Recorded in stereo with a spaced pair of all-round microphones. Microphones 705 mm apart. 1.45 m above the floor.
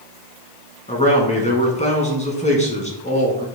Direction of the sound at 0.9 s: 10° left (ahead or behind).